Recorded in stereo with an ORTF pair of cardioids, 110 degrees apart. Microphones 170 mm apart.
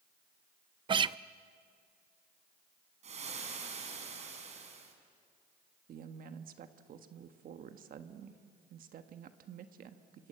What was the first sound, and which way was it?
A guitar, 30° right.